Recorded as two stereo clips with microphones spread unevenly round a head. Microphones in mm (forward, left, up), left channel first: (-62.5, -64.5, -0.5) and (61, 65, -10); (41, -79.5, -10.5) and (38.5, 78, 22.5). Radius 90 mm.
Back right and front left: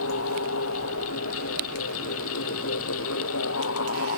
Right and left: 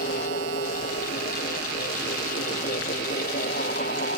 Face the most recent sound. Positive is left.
turn(degrees=-140)